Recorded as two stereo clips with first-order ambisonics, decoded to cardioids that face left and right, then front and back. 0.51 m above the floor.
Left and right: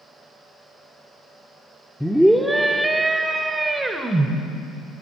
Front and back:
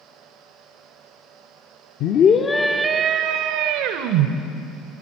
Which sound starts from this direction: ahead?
A scream, at 2.0 s.